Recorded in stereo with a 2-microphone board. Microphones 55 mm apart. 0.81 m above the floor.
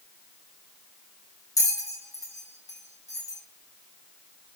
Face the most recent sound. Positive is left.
turn(degrees=75)  # may be behind; listen again after turning